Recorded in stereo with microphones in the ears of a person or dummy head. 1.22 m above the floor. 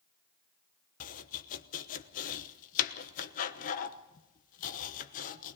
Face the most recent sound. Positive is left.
turn(degrees=40)  # may be behind; listen again after turning